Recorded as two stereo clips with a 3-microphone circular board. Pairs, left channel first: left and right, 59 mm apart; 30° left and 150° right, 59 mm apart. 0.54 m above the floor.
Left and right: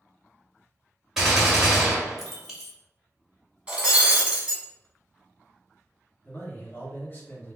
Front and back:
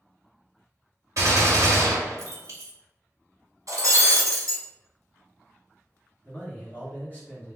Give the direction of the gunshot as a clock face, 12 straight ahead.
6 o'clock.